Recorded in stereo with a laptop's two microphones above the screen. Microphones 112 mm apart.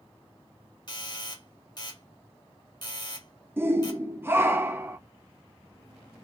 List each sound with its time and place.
0.9 s a doorbell: 45° left (ahead or behind), 2 m
3.6 s a shout: 20° right (ahead or behind), 0.6 m